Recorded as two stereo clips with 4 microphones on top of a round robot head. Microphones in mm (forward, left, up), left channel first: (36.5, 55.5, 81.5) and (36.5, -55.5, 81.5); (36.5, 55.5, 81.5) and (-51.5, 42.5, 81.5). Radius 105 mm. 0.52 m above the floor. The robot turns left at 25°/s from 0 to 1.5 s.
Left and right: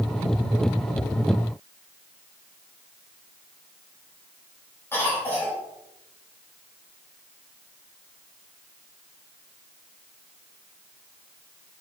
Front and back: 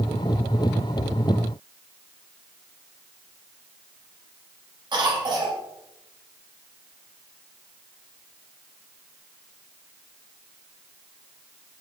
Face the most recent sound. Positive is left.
turn(degrees=160)